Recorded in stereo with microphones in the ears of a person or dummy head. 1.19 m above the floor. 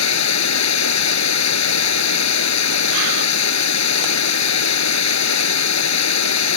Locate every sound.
0.0 s running water: 85° left